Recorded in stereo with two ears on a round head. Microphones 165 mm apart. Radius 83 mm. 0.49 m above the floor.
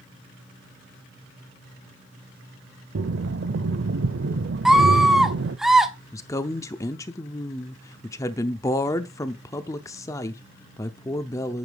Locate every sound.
3.0 s breathing: 70° right (ahead or behind), 0.6 m
4.7 s a scream: centre (ahead or behind), 1.1 m
6.1 s a woman speaking: 15° left (ahead or behind), 0.7 m